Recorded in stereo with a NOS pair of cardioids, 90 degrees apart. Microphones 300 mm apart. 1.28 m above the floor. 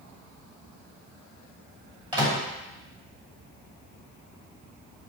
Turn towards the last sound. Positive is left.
turn(degrees=-15)